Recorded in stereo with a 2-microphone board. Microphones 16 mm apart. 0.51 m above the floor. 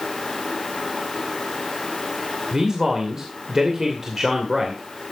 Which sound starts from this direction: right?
A man speaking, at 2.5 s.